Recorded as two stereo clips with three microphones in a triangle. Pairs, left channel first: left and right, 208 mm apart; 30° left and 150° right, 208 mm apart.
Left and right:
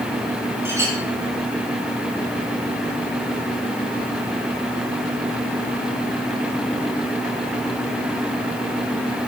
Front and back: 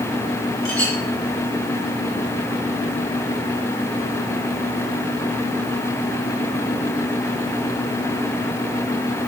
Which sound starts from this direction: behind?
A clink, at 0.7 s.